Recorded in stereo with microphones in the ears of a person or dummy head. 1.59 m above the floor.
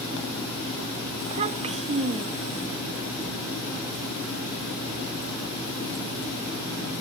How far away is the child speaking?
About 1.8 m.